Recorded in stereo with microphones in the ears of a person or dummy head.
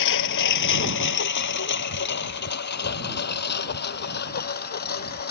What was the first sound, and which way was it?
A lawn mower, 65° left (ahead or behind).